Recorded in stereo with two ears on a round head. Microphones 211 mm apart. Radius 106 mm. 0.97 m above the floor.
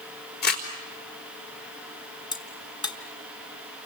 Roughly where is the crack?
Centre.